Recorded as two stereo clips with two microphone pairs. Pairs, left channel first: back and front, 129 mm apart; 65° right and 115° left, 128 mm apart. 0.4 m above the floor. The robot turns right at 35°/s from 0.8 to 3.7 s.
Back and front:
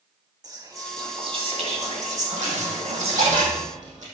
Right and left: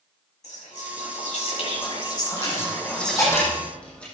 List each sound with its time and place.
0.4 s whispering: 60° right, 3 m; by 3.4 s 30° left, 3 m
2.4 s a dropped coin: 30° right, 4.5 m; by 4.0 s 20° left, 4.5 m